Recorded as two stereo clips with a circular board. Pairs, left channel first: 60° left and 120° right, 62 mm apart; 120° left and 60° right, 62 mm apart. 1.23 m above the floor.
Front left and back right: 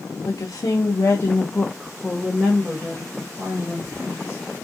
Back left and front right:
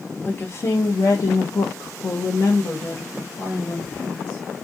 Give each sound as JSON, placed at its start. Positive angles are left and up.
{"t": 0.2, "sound": "a woman speaking", "azimuth_deg": 70, "distance_m": 0.8}